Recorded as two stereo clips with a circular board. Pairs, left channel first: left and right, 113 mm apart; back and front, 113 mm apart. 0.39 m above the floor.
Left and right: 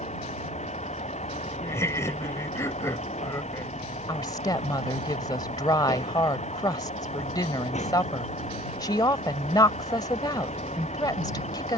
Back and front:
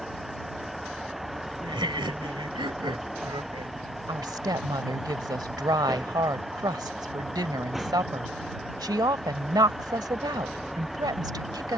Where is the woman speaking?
45° left.